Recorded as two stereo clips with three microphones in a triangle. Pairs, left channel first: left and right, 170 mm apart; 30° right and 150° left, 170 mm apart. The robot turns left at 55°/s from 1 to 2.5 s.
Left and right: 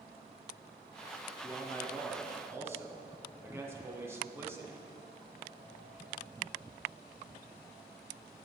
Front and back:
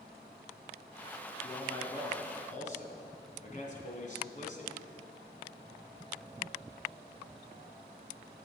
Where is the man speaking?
40° left, 1.6 m; by 4.8 s 20° right, 1.6 m.